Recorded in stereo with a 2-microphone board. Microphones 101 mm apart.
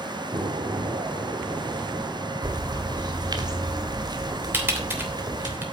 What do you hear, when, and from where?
0.3 s an explosion: 60° right (ahead or behind), 1.9 m
2.4 s a bird: 45° right (ahead or behind), 1.8 m
4.5 s typing on a keyboard: 20° right (ahead or behind), 3 m